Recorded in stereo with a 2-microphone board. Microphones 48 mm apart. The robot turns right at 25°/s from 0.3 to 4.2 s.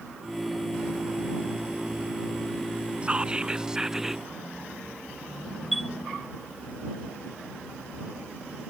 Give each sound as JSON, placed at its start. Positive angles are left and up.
{"t": 3.0, "sound": "whispering", "side_deg": -25}
{"t": 5.7, "sound": "a chime", "side_deg": 0}